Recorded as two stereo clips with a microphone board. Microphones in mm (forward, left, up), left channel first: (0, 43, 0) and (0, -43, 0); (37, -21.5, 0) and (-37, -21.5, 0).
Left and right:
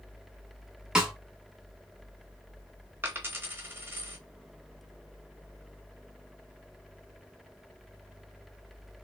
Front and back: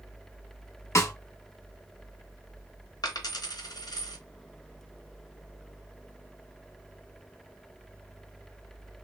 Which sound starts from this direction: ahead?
A snare drum, at 0.9 s.